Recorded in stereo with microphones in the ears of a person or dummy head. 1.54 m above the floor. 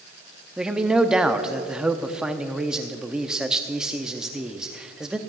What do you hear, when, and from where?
0.6 s a man speaking: 5° right (ahead or behind), 0.5 m